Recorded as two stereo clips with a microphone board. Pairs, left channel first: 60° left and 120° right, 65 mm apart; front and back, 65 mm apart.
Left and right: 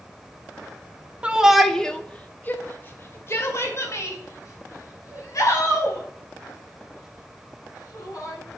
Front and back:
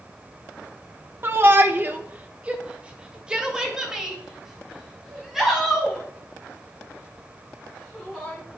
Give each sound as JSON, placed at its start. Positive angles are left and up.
{"t": 1.2, "sound": "a shout", "azimuth_deg": -175, "distance_m": 1.1}